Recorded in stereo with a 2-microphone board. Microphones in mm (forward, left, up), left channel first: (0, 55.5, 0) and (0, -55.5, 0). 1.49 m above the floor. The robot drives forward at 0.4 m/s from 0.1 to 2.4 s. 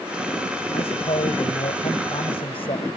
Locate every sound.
0.7 s a man speaking: 60° left (ahead or behind); by 2.9 s 55° left (ahead or behind)